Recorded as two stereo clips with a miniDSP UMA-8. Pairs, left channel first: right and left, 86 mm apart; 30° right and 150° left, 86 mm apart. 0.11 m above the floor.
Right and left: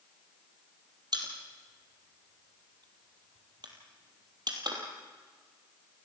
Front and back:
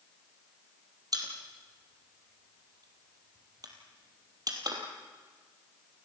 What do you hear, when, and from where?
1.1 s a pop: 115° left, 3 m